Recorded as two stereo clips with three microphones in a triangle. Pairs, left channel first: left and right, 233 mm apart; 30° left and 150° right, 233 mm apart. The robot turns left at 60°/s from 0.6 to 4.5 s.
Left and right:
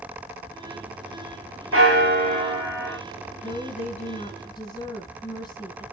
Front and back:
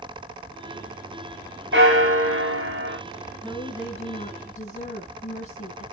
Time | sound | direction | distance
1.7 | a bell | 110° right | 4 m
3.4 | a woman speaking | 100° left | 1.6 m